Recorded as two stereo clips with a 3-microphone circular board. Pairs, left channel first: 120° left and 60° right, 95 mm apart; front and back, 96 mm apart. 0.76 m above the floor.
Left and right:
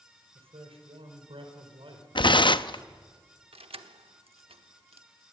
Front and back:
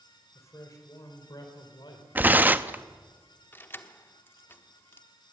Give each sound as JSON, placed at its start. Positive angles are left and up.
{"t": 0.3, "sound": "a man speaking", "azimuth_deg": -60, "distance_m": 3.5}
{"t": 2.1, "sound": "tearing paper", "azimuth_deg": 115, "distance_m": 0.6}
{"t": 3.5, "sound": "keys jangling", "azimuth_deg": -70, "distance_m": 1.0}